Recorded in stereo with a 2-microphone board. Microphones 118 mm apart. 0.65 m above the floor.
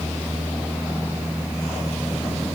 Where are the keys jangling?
I don't hear keys jangling.